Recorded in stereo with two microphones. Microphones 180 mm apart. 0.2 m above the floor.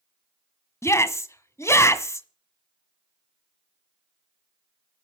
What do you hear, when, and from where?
0.8 s a shout: 15° left (ahead or behind), 1.5 m